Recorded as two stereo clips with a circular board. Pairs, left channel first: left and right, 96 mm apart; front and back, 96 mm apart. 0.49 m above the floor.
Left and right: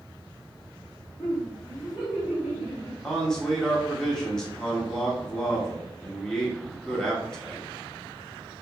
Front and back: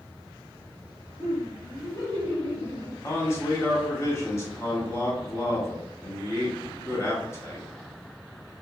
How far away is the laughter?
About 1.3 m.